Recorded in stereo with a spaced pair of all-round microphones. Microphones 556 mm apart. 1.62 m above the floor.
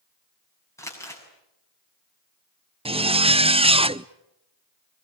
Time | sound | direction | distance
0.8 | crumpling | 5° left (ahead or behind) | 7 m
2.9 | a zipper | 10° right (ahead or behind) | 0.6 m